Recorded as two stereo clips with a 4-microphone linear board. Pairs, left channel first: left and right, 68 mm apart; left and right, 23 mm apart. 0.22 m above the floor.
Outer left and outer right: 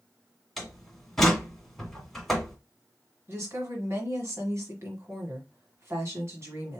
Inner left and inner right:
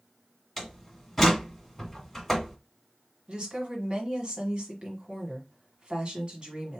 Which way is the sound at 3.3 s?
45° right (ahead or behind).